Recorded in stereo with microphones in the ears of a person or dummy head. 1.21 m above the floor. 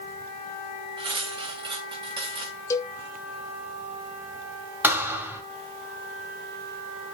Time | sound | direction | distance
1.0 | cutlery clinking | 25° right (ahead or behind) | 1.2 m
2.7 | a cowbell | 20° left (ahead or behind) | 1.0 m
4.8 | a thud | 15° right (ahead or behind) | 1.9 m